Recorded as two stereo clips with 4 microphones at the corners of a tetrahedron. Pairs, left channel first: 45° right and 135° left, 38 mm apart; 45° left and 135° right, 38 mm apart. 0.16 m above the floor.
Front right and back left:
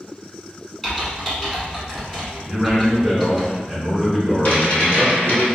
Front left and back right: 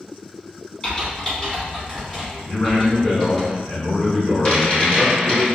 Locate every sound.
0.8 s typing on a keyboard: 20° left, 1.5 m
2.5 s a man speaking: 50° left, 1.4 m
4.5 s a rattle: 5° right, 1.5 m